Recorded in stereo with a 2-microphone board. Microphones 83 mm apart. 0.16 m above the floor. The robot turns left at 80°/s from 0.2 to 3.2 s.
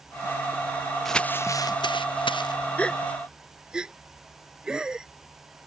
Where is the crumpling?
175° left; by 2.5 s 55° left.